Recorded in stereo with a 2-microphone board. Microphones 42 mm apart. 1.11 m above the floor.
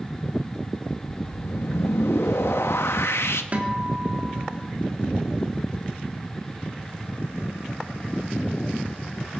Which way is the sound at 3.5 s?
35° right (ahead or behind).